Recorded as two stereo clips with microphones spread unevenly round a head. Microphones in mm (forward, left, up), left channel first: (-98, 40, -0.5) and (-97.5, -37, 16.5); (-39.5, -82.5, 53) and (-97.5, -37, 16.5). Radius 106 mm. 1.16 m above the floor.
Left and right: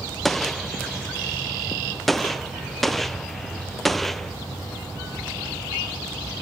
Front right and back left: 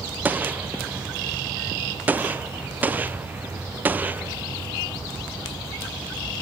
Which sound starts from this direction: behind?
A gunshot, at 0.2 s.